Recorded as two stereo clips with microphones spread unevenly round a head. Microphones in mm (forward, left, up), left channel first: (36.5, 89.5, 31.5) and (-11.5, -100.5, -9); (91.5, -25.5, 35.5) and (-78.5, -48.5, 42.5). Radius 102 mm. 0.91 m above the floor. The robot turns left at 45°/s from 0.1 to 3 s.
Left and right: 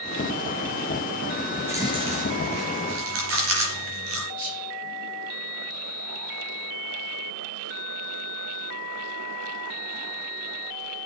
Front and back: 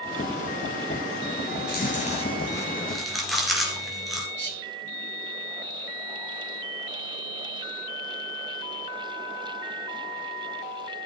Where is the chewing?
20° right, 3 m; by 4.3 s 85° right, 3 m.